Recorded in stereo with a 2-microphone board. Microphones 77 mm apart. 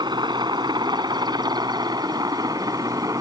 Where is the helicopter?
70° right (ahead or behind); by 3.2 s 50° right (ahead or behind).